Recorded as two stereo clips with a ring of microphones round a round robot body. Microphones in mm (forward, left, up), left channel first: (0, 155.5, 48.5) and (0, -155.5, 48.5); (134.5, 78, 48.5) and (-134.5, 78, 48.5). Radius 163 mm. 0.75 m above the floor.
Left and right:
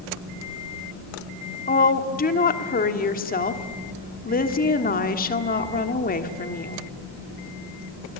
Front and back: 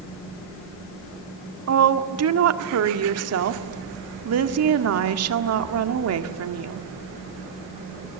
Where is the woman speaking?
155° left, 1.6 m.